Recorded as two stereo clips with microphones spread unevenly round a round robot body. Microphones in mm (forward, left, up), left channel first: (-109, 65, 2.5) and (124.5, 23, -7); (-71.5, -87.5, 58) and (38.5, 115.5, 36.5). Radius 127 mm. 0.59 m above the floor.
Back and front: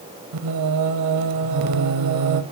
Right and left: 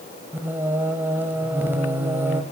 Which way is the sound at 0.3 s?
20° right.